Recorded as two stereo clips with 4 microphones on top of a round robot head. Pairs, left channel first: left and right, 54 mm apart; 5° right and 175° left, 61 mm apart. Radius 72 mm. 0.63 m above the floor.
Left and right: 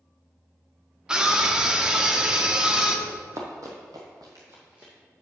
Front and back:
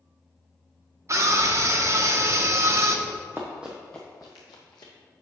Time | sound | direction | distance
1.1 | a scream | 165° right | 1.2 m
3.1 | running footsteps | 130° right | 1.4 m